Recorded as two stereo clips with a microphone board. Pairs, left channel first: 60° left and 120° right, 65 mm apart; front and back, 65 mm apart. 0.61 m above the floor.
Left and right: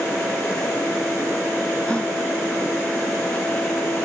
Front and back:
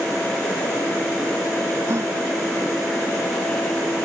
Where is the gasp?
135° left.